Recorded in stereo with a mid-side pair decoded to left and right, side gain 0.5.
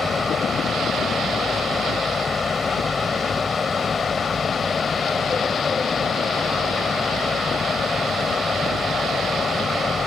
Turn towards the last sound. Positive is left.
turn(degrees=35)